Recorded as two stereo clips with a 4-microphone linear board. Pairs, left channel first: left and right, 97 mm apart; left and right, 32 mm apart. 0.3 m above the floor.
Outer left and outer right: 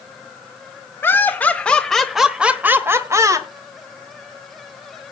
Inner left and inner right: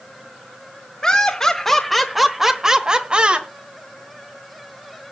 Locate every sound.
1.0 s laughter: 20° left (ahead or behind), 1.3 m; by 3.5 s 35° right (ahead or behind), 1.1 m